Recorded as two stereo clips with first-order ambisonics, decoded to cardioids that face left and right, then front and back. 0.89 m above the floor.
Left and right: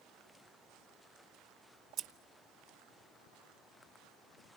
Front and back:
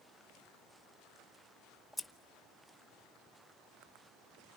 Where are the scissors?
80° right, 0.9 m.